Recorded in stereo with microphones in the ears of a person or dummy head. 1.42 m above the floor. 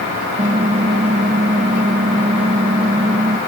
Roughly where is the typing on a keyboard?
Right.